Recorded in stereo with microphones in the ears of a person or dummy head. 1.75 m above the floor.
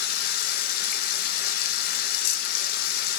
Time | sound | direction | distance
0.0 | running water | 55° left (ahead or behind) | 0.8 m